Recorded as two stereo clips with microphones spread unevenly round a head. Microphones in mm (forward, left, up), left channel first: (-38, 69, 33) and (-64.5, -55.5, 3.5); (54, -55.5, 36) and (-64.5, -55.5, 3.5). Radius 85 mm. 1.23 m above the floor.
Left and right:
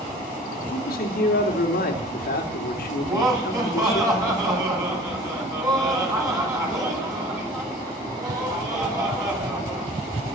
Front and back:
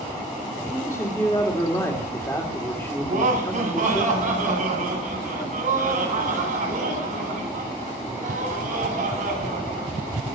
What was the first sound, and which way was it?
A man speaking, 75° left.